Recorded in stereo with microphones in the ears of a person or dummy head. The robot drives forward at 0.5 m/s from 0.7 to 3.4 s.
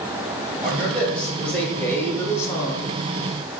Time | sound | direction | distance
0.6 | a man speaking | 5° left (ahead or behind) | 1.5 m